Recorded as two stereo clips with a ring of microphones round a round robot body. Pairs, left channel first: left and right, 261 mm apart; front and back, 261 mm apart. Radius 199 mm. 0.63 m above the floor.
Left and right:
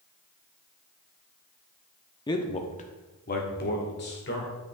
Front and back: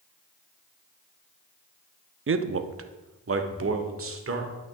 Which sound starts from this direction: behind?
A man speaking, at 2.3 s.